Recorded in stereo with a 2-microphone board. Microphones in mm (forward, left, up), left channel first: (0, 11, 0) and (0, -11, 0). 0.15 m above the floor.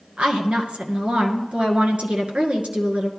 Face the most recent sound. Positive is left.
turn(degrees=-55)  # may be behind; listen again after turning